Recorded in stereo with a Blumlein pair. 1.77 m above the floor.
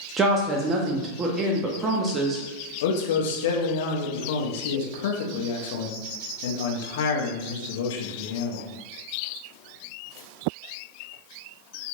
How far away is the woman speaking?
About 0.5 m.